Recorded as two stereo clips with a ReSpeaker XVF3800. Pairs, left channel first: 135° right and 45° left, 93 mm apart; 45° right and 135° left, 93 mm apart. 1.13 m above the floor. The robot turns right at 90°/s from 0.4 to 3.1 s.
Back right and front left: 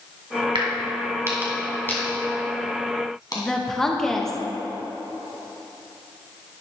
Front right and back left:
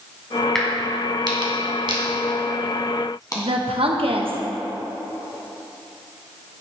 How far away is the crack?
About 2 m.